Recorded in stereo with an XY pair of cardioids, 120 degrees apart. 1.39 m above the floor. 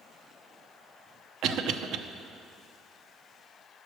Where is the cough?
65° right, 0.7 m.